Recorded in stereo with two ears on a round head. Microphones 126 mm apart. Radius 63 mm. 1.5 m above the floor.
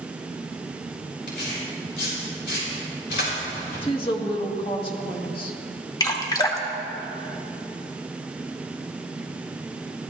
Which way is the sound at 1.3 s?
80° left.